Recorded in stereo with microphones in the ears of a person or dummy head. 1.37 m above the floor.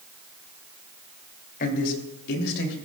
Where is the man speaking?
50° left (ahead or behind), 3 m; by 2.7 s 70° left (ahead or behind), 3.5 m.